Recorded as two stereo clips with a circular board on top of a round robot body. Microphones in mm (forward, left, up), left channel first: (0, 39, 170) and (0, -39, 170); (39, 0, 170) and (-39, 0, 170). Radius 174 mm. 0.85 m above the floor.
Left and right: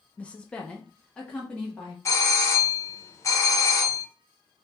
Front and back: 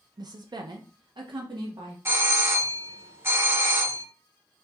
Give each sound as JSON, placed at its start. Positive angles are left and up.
{"t": 0.2, "sound": "a woman speaking", "azimuth_deg": 160, "distance_m": 0.5}
{"t": 2.0, "sound": "a doorbell", "azimuth_deg": 130, "distance_m": 1.0}